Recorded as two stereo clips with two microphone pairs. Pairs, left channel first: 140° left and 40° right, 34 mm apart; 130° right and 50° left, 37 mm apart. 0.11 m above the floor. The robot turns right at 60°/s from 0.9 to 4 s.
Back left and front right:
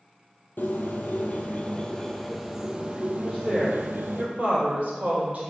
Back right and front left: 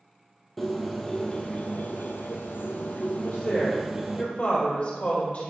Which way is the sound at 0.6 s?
145° left.